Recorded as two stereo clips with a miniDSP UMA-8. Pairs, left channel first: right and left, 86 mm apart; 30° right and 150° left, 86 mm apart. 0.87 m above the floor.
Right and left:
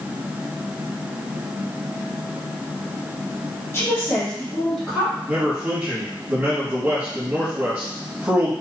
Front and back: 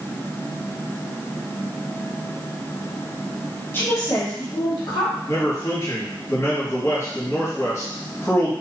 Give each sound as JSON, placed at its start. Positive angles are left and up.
{"t": 3.7, "sound": "a woman speaking", "azimuth_deg": -65, "distance_m": 0.8}
{"t": 5.3, "sound": "a man speaking", "azimuth_deg": 20, "distance_m": 1.2}